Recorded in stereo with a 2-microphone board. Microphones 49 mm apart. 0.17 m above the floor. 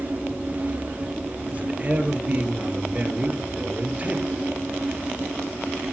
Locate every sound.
1.5 s a man speaking: 30° right (ahead or behind), 3.5 m